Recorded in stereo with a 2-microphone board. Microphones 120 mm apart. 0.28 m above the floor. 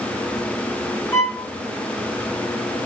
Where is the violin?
20° left (ahead or behind), 1.4 m.